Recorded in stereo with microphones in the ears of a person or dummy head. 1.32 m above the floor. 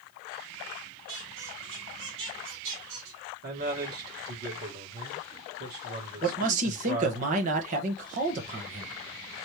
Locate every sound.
1.1 s a squeak: 75° right (ahead or behind), 2 m
3.4 s a man speaking: 55° right (ahead or behind), 2.5 m
6.2 s a man speaking: 45° right (ahead or behind), 1.3 m